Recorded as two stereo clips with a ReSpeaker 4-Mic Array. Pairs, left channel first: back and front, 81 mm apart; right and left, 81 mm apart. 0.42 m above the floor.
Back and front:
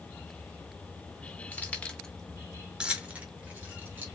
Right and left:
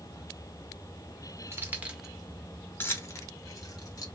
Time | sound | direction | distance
1.5 | keys jangling | 125° left | 0.8 m